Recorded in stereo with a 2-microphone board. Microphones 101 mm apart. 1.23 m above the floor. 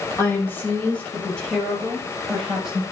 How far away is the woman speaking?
About 6 m.